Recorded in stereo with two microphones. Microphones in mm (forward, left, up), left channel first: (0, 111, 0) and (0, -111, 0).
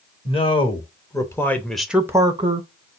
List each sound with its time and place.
0.2 s a man speaking: 25° left (ahead or behind), 1.4 m; by 2.7 s 35° right (ahead or behind), 0.6 m